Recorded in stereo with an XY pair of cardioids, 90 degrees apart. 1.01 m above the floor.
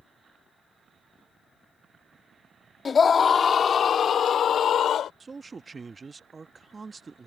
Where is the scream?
45° left; by 5.1 s 70° left.